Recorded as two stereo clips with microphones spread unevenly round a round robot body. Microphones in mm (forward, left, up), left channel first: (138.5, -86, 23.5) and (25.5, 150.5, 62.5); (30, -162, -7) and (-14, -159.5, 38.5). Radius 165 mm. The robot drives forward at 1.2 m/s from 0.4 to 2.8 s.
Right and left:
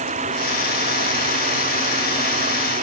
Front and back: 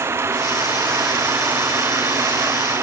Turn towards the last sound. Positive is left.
turn(degrees=-175)